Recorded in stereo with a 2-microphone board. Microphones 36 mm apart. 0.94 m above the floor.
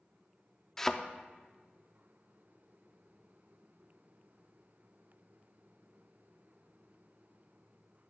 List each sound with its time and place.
0.8 s a thud: 10° left (ahead or behind), 0.5 m